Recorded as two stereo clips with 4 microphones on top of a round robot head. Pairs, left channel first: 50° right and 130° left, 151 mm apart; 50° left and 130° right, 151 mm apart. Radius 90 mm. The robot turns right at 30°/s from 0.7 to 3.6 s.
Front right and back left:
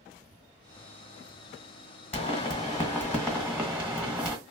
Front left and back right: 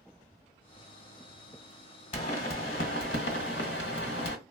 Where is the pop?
Straight ahead, 1.3 m; by 4.4 s 45° left, 1.3 m.